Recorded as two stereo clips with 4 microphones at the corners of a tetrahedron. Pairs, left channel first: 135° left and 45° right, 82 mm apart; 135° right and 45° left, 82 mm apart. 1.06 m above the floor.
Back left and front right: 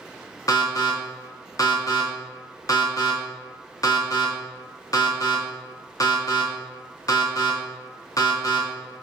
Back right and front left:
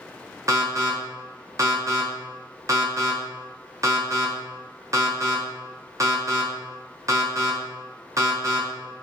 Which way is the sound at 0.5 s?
90° left.